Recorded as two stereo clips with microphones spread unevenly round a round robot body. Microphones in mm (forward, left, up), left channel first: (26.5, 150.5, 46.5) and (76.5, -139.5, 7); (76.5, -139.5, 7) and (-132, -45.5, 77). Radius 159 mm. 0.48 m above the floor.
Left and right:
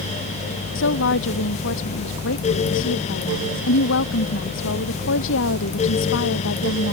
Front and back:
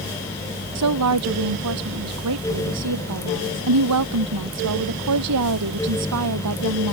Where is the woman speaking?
155° left.